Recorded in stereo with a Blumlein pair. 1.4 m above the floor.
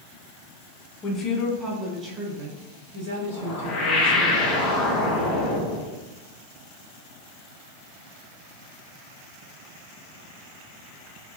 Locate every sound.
1.0 s a woman speaking: 20° left, 1.0 m; by 4.3 s 65° right, 2 m
3.3 s a whoosh: 25° left, 0.9 m